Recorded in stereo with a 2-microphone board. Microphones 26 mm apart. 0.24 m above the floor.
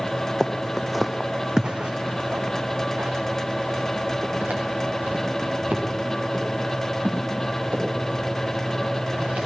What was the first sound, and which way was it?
Footsteps, 15° left (ahead or behind).